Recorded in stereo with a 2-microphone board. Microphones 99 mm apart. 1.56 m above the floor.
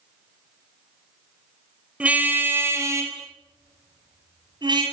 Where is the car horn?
15° right (ahead or behind), 4 m; by 4.8 s 50° right (ahead or behind), 7 m.